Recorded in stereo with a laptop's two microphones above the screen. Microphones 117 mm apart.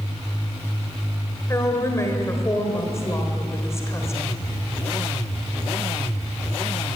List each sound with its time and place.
1.5 s a woman speaking: 25° left (ahead or behind), 3.5 m